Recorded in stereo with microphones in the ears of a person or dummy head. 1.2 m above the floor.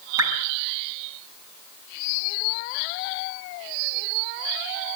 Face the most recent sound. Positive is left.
turn(degrees=-25)  # may be behind; listen again after turning